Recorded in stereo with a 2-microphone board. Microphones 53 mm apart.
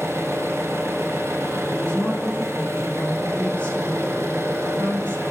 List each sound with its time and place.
0.0 s an engine running: 70° right (ahead or behind), 1.1 m
1.6 s a woman speaking: 35° left (ahead or behind), 1.6 m